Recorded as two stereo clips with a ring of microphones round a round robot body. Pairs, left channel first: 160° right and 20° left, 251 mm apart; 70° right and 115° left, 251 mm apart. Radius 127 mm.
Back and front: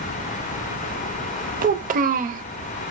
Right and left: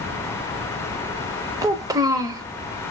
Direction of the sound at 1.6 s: 45° left.